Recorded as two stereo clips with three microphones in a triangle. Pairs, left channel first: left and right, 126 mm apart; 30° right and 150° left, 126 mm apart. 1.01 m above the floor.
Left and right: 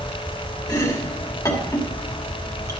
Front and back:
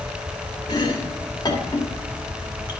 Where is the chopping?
25° left, 1.5 m.